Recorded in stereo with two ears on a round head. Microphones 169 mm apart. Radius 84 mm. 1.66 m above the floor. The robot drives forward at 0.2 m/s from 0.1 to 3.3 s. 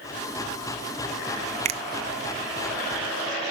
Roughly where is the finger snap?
Right.